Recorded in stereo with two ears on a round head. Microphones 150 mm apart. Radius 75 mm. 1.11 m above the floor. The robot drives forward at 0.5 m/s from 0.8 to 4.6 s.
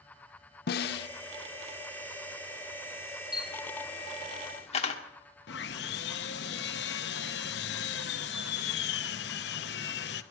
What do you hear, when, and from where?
0.7 s a snare drum: 60° left (ahead or behind), 0.5 m; by 1.1 s 65° left (ahead or behind), 0.5 m
3.3 s a camera shutter: 25° left (ahead or behind), 1.8 m; by 5.0 s 35° left (ahead or behind), 1.3 m
5.5 s sawing: 70° left (ahead or behind), 0.8 m